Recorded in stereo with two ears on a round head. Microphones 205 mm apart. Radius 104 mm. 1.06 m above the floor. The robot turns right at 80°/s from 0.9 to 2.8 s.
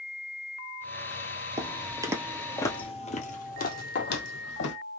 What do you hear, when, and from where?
1.6 s footsteps: 15° right (ahead or behind), 1.1 m; by 4.8 s 55° left (ahead or behind), 2.0 m
4.0 s a clink: 50° left (ahead or behind), 0.9 m